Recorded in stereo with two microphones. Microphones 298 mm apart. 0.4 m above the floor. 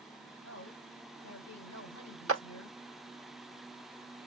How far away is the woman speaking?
About 2.5 m.